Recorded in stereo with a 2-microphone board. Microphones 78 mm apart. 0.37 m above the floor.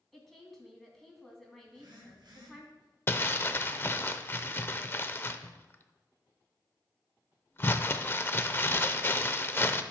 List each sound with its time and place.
0.1 s a woman speaking: centre (ahead or behind), 2.5 m
1.7 s a phone buzzing: 65° right (ahead or behind), 4 m
3.1 s crumpling: 30° left (ahead or behind), 0.5 m